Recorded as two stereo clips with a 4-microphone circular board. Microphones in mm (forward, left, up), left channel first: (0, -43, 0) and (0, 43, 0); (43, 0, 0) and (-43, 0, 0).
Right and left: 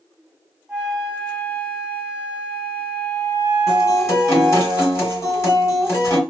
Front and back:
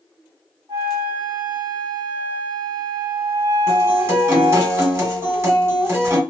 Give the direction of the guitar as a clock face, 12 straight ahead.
4 o'clock.